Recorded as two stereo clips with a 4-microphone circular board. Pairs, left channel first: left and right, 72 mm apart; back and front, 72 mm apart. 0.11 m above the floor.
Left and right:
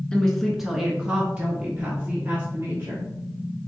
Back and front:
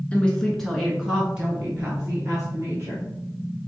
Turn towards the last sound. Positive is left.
turn(degrees=-50)